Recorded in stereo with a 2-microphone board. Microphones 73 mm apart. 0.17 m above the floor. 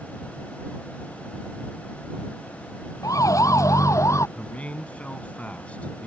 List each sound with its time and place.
3.0 s a siren: 50° left (ahead or behind); by 4.3 s 45° left (ahead or behind)
4.4 s a man speaking: 20° left (ahead or behind)